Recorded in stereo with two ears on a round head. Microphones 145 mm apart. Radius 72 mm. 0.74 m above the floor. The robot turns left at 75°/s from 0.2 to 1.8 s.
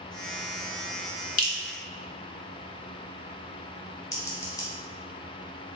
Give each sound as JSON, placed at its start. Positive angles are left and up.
{"t": 1.4, "sound": "dripping", "side_deg": 50, "distance_m": 0.9}
{"t": 4.1, "sound": "scissors", "side_deg": 20, "distance_m": 1.1}